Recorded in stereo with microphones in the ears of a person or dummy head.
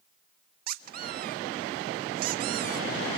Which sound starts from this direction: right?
A squeak, at 0.7 s.